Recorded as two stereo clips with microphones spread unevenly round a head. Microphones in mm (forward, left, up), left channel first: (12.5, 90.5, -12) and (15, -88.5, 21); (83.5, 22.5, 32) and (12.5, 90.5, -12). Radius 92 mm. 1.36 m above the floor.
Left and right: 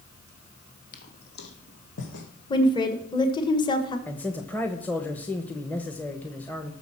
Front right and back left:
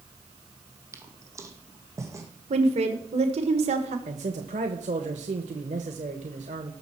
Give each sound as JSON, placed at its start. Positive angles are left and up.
{"t": 0.9, "sound": "footsteps", "azimuth_deg": 60, "distance_m": 2.0}
{"t": 2.5, "sound": "a woman speaking", "azimuth_deg": 155, "distance_m": 1.3}
{"t": 4.1, "sound": "a man speaking", "azimuth_deg": 175, "distance_m": 0.9}